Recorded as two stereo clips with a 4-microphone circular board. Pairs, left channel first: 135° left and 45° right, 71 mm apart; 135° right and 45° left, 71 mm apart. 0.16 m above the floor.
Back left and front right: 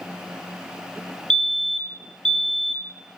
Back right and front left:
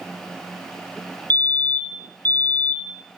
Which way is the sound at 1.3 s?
155° right.